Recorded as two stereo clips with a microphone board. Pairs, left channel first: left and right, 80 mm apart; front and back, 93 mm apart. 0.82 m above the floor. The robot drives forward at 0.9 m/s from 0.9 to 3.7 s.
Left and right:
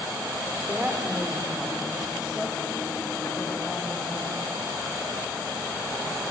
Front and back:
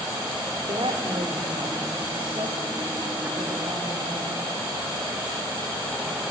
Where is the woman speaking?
165° right, 1.9 m; by 4.4 s 175° right, 4.5 m.